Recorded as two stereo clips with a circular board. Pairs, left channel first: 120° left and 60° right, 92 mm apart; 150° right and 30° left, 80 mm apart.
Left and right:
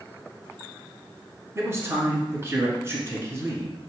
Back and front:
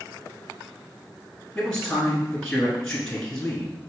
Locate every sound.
1.6 s a man speaking: 75° right, 1.2 m